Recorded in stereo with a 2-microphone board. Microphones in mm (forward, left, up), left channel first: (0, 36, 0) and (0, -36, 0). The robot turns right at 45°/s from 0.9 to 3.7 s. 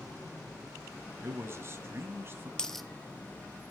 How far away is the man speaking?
About 1.6 m.